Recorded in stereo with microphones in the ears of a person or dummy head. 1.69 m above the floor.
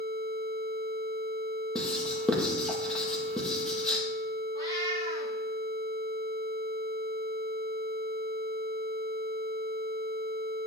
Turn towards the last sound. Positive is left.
turn(degrees=25)  # may be behind; listen again after turning